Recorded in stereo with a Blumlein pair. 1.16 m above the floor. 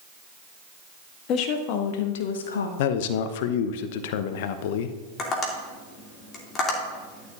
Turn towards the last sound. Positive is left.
turn(degrees=25)